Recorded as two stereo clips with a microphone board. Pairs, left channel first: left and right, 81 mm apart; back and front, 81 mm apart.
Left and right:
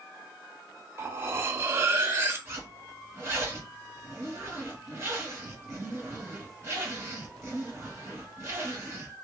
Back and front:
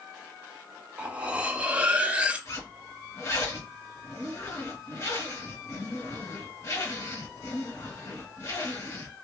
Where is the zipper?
140° right, 1.7 m.